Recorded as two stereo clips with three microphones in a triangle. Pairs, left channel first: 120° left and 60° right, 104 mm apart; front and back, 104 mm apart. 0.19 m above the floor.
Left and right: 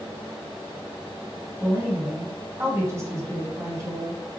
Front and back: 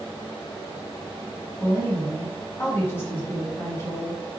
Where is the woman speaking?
40° right, 1.3 m.